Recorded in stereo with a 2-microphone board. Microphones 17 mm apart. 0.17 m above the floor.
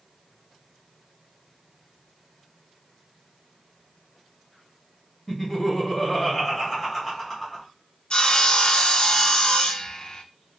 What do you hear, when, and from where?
5.3 s laughter: 15° left (ahead or behind), 1.6 m
8.1 s sawing: 50° left (ahead or behind), 0.6 m